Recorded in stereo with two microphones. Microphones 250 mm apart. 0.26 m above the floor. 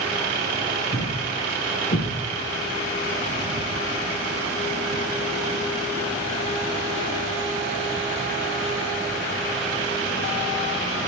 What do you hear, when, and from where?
0.9 s a thud: 50° left (ahead or behind), 3.5 m